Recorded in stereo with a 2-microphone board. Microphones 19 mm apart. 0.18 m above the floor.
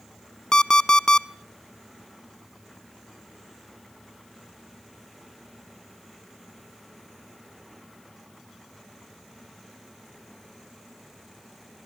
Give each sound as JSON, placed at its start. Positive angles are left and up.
{"t": 0.5, "sound": "an alarm clock", "side_deg": 40, "distance_m": 0.7}